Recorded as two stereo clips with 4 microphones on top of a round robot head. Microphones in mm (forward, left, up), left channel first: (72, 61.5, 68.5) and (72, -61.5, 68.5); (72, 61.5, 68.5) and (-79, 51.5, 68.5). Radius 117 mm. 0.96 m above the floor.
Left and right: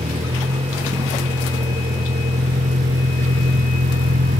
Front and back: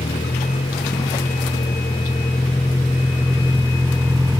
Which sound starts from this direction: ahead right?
A vehicle, at 0.0 s.